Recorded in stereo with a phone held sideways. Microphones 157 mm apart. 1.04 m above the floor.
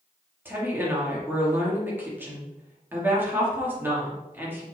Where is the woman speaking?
15° right (ahead or behind), 2.5 m.